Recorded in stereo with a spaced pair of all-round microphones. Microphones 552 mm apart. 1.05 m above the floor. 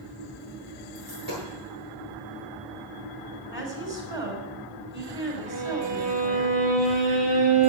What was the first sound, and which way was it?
A dropped coin, 40° right (ahead or behind).